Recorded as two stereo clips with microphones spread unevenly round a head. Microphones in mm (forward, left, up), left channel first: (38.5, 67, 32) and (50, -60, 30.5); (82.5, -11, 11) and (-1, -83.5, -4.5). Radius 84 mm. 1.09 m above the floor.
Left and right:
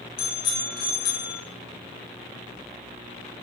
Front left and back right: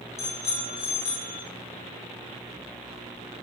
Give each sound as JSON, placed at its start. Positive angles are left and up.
{"t": 0.2, "sound": "a bicycle bell", "azimuth_deg": 100, "distance_m": 3.5}